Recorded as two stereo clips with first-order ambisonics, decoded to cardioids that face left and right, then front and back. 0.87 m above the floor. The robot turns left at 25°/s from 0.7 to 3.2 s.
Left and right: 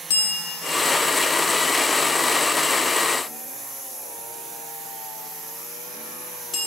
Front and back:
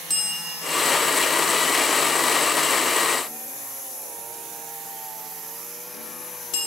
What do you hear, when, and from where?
0.1 s a bell: 90° left, 0.9 m; by 6.7 s 25° left, 0.9 m